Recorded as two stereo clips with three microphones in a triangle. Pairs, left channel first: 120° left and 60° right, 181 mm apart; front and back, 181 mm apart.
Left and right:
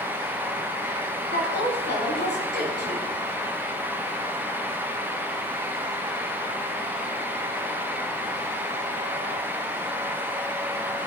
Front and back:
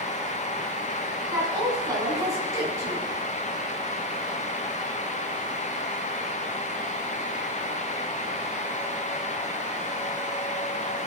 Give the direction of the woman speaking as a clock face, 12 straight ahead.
8 o'clock.